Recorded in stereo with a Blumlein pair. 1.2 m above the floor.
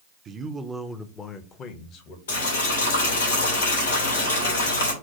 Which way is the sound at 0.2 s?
25° right.